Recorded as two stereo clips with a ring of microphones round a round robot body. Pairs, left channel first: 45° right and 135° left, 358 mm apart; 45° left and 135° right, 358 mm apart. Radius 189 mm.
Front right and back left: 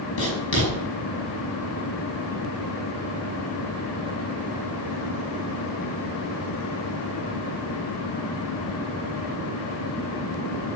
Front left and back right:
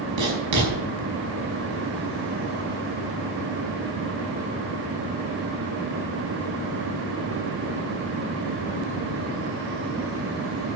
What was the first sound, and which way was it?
Writing, 100° right.